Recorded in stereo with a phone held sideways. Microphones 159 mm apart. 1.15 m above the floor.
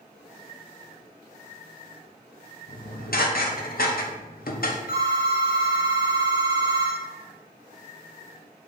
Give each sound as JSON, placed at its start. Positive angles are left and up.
{"t": 2.7, "sound": "dishes clattering", "side_deg": 70, "distance_m": 0.6}
{"t": 4.9, "sound": "a phone ringing", "side_deg": 70, "distance_m": 1.4}